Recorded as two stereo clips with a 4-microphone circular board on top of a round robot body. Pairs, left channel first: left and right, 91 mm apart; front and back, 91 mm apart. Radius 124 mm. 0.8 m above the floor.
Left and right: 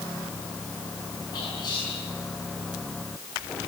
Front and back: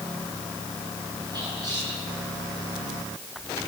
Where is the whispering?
135° left, 6.5 m.